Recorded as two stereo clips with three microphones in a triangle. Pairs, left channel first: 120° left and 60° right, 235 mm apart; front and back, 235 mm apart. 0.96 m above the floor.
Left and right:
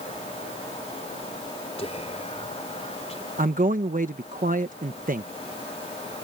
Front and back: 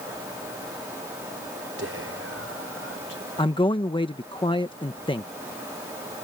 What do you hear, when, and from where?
1.8 s whispering: straight behind
3.4 s a man speaking: 55° right